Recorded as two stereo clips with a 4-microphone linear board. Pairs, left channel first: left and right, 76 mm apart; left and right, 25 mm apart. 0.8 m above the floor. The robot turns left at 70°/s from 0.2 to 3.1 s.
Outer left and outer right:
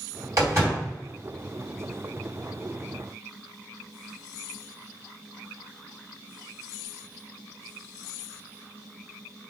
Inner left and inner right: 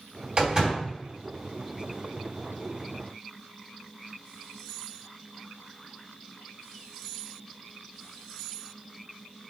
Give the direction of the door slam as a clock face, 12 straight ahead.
4 o'clock.